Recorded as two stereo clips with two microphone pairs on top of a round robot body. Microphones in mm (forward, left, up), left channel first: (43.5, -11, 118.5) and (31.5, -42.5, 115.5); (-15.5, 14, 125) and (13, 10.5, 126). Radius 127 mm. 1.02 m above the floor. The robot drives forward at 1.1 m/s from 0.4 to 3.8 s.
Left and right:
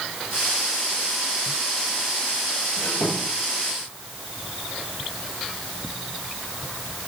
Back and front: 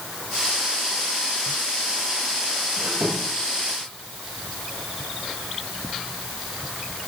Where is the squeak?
20° left, 8 m.